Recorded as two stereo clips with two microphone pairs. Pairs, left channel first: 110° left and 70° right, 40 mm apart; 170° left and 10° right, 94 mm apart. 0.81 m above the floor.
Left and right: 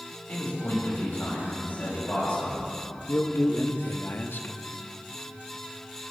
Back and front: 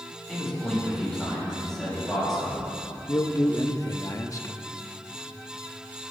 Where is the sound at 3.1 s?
120° left, 0.9 m.